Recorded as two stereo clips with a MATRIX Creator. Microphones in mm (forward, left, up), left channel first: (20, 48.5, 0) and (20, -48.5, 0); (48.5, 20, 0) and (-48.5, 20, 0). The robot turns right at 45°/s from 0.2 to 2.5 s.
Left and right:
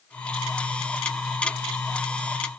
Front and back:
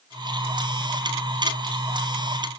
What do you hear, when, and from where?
Only background noise.